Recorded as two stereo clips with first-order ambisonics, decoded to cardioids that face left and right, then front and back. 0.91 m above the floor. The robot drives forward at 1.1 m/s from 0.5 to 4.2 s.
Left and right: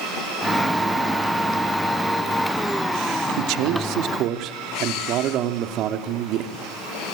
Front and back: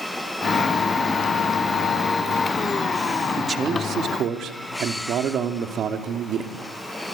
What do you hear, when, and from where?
3.4 s a man speaking: 105° right, 1.9 m; by 6.6 s 130° right, 2.5 m